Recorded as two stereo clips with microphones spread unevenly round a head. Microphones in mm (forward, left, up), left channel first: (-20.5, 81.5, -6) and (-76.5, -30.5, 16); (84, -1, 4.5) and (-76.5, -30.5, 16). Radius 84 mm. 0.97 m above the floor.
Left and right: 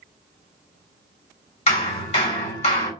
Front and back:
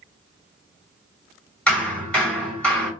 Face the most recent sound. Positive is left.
turn(degrees=95)